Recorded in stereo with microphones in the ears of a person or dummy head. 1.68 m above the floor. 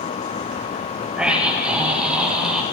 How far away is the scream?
About 9.5 m.